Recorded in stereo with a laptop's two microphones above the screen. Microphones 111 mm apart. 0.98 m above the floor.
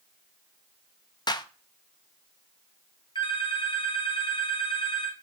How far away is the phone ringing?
About 2.5 m.